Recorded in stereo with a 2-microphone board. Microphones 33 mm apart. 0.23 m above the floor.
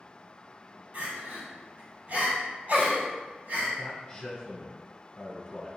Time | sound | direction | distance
0.9 | crying | 60° right (ahead or behind) | 1.9 m
3.8 | a man speaking | 30° left (ahead or behind) | 1.5 m